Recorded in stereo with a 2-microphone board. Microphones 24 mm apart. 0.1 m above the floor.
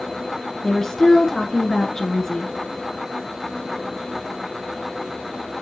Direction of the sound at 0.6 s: 20° left (ahead or behind).